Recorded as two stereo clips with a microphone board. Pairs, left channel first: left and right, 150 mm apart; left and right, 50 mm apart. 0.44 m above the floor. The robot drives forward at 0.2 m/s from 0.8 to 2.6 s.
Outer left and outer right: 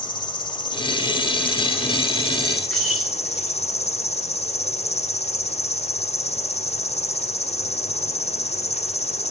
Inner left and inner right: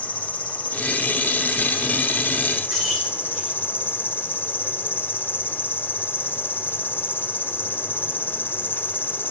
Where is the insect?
30° left (ahead or behind), 1.0 m; by 9.3 s 45° left (ahead or behind), 0.7 m.